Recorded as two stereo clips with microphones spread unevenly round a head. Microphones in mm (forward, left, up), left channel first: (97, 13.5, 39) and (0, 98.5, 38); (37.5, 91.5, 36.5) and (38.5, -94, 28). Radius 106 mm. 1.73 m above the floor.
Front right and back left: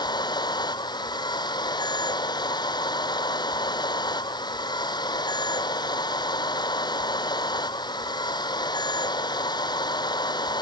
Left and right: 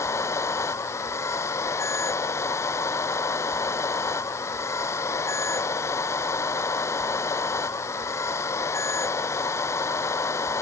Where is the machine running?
15° left.